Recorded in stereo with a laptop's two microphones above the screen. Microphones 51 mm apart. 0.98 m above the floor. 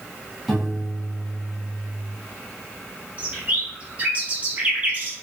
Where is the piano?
Centre (ahead or behind), 1.6 m.